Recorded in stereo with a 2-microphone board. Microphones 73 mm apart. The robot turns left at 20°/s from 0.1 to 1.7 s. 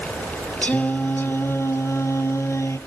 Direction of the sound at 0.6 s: 20° left (ahead or behind).